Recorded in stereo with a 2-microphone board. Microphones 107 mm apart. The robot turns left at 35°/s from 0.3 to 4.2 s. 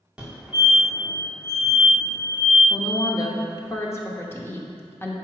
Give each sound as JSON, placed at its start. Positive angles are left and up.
{"t": 0.2, "sound": "a fire alarm", "side_deg": -10, "distance_m": 1.6}
{"t": 2.7, "sound": "a woman speaking", "azimuth_deg": 90, "distance_m": 0.8}